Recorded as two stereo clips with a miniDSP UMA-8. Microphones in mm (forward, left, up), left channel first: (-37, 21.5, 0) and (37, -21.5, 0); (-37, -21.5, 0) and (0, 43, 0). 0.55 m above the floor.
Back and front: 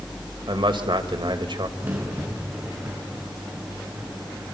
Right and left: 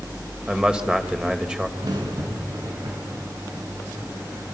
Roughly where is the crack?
Ahead left.